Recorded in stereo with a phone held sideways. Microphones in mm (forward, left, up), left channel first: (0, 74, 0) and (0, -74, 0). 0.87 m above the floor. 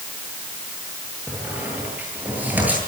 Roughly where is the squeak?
Centre.